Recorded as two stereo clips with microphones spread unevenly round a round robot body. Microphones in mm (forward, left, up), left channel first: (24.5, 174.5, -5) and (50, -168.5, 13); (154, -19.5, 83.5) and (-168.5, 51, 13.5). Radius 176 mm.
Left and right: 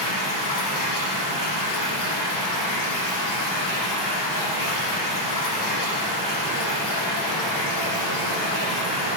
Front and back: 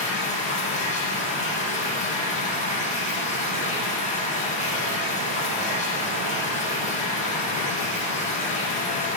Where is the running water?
55° left, 7 m.